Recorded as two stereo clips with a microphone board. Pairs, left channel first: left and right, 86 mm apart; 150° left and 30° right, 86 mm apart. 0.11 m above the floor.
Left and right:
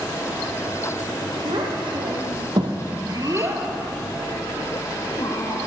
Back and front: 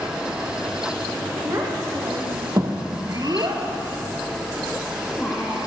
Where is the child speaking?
85° right, 3.5 m; by 5.6 s 65° left, 2.5 m.